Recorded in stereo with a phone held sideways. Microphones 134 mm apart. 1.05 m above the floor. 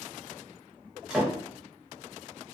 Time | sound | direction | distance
1.1 | a door slam | 5° right (ahead or behind) | 0.7 m